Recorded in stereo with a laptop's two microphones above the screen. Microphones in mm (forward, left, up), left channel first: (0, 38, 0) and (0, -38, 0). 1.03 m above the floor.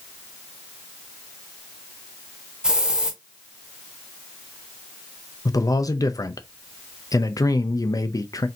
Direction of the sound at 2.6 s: 10° right (ahead or behind).